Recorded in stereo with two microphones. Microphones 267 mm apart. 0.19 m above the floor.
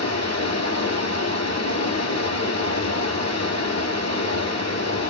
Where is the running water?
75° left (ahead or behind), 1.3 m.